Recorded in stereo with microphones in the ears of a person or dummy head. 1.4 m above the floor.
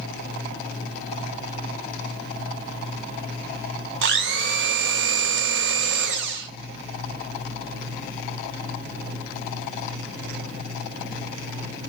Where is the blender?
65° right (ahead or behind), 1.0 m.